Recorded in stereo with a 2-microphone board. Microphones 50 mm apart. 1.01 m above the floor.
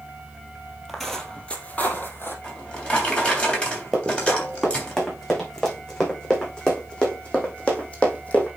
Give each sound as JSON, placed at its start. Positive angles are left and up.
{"t": 0.9, "sound": "footsteps", "side_deg": 0, "distance_m": 1.6}
{"t": 2.4, "sound": "a drawer", "side_deg": 20, "distance_m": 3.0}
{"t": 3.9, "sound": "running footsteps", "side_deg": 5, "distance_m": 5.0}